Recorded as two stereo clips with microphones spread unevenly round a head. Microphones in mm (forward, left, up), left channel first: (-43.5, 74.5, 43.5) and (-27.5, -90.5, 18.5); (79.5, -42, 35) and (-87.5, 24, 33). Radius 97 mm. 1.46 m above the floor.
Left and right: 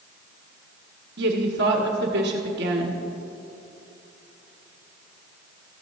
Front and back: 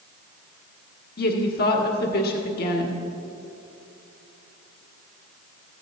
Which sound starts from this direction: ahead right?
A woman speaking, at 1.2 s.